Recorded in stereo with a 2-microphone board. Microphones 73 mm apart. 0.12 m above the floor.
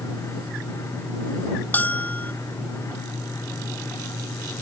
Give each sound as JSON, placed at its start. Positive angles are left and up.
{"t": 1.7, "sound": "a bell", "side_deg": 25}